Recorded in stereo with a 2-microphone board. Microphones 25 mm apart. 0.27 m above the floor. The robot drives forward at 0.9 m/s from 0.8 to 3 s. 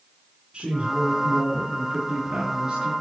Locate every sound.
0.5 s a woman speaking: 50° right (ahead or behind), 2.5 m; by 2.9 s 30° right (ahead or behind), 4 m